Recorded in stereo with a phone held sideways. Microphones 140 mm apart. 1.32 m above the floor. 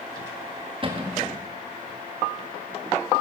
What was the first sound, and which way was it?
A cupboard door, 35° right (ahead or behind).